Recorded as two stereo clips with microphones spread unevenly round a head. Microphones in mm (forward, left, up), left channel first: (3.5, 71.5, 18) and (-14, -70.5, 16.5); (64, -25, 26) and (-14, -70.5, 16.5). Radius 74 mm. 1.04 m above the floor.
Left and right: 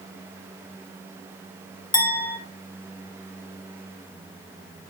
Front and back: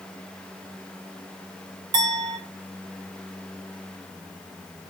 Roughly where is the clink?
Behind left.